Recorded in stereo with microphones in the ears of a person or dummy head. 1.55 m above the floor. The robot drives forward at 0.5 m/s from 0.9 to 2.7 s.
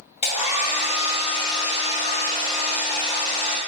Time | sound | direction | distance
0.2 | a hair dryer | 40° left (ahead or behind) | 0.8 m